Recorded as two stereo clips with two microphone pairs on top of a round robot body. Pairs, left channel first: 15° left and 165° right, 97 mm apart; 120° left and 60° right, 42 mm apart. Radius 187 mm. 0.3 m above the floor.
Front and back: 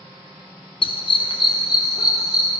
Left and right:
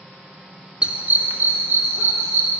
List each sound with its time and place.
0.8 s a dog barking: 15° left, 0.6 m; by 2.5 s 40° right, 1.3 m